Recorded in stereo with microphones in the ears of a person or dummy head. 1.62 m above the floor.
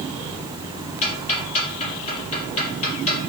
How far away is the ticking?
About 5 m.